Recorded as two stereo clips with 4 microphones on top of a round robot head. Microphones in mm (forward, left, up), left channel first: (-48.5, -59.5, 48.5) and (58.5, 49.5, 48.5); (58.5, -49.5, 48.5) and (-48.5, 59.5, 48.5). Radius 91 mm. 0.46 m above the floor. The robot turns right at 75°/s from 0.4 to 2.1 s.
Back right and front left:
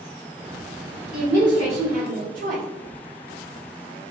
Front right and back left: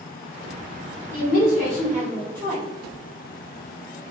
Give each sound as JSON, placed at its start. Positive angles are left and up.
{"t": 1.1, "sound": "a woman speaking", "azimuth_deg": -40, "distance_m": 1.7}